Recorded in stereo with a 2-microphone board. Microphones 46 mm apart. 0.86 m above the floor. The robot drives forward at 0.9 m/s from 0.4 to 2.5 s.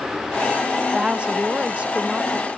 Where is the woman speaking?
20° right (ahead or behind); by 2.5 s 15° right (ahead or behind).